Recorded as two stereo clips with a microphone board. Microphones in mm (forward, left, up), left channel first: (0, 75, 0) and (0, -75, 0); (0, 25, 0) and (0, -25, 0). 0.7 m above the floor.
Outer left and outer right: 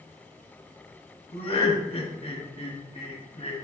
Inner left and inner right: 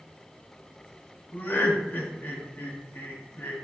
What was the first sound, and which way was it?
Laughter, 45° left (ahead or behind).